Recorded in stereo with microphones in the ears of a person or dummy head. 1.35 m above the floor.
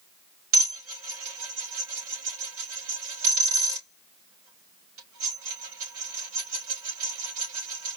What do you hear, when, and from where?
0.5 s dishes clattering: 85° right, 4 m